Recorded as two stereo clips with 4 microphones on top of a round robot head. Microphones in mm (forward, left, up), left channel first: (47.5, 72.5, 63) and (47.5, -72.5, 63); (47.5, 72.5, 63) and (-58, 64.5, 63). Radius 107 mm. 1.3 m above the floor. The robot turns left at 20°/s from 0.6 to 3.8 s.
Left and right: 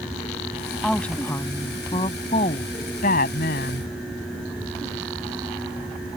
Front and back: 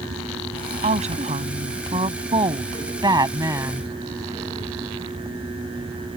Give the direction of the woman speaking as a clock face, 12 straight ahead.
6 o'clock.